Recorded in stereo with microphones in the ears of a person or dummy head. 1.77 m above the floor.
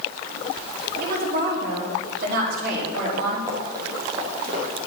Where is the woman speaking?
55° right (ahead or behind), 4.5 m.